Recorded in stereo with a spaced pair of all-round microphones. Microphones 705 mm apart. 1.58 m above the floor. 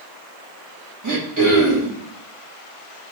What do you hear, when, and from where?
1.0 s throat clearing: 25° right (ahead or behind), 1.0 m